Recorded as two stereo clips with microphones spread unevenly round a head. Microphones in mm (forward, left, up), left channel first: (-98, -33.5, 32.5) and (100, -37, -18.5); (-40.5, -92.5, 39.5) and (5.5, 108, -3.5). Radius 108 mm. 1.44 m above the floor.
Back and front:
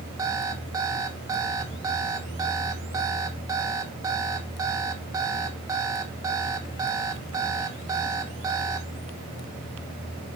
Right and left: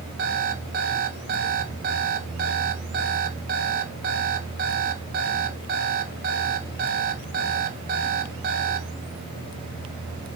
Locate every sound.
0.2 s an alarm clock: 85° left, 1.0 m